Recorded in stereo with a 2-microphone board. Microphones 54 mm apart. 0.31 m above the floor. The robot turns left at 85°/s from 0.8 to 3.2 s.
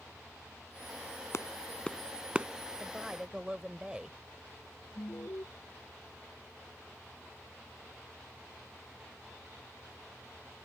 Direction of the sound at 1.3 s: 60° left (ahead or behind).